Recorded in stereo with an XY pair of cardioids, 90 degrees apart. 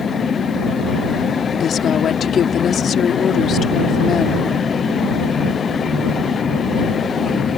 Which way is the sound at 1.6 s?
65° left.